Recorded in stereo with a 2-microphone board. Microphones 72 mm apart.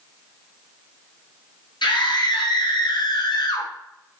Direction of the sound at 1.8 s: 80° left.